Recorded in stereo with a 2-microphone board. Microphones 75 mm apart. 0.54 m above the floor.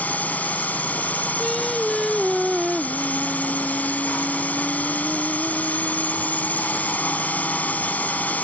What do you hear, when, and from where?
0.0 s a drone: 20° left (ahead or behind)
1.4 s singing: centre (ahead or behind)